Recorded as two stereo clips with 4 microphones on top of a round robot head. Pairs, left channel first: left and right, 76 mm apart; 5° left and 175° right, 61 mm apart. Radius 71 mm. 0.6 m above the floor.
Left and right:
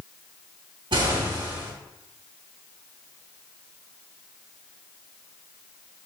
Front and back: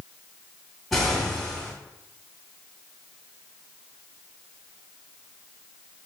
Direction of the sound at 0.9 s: 85° right.